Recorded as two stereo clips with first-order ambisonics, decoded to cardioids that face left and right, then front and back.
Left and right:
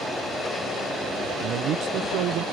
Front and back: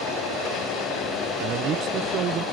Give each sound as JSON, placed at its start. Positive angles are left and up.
{"t": 1.4, "sound": "a man speaking", "azimuth_deg": -130}